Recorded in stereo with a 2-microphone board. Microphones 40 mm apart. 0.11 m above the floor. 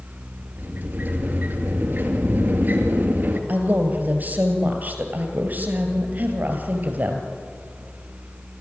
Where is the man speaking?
45° right (ahead or behind), 3 m.